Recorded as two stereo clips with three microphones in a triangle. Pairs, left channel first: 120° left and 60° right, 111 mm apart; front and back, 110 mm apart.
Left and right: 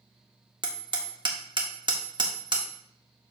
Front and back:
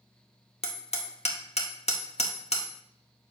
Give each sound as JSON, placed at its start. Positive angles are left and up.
{"t": 0.6, "sound": "hammering", "azimuth_deg": -15, "distance_m": 1.6}